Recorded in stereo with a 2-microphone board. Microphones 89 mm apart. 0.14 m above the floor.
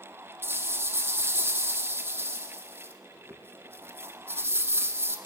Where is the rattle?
25° right (ahead or behind), 5 m.